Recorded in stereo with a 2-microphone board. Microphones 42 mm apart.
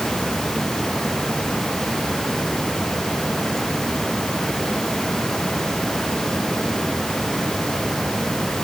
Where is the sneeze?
No sneeze in this recording.